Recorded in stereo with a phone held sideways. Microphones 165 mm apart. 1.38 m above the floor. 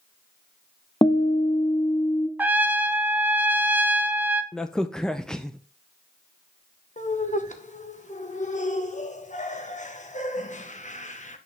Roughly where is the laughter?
Left.